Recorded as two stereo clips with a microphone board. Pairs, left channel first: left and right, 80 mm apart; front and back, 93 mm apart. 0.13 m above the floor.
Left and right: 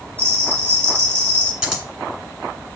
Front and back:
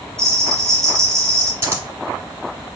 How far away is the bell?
About 1.5 m.